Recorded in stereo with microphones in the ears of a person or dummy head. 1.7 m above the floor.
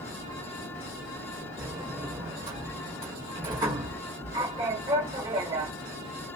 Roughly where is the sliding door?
Centre.